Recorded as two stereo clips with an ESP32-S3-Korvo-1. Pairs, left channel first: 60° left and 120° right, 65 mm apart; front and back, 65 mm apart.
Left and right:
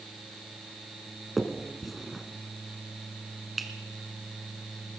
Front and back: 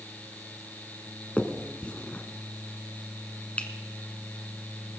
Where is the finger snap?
35° right, 1.3 m.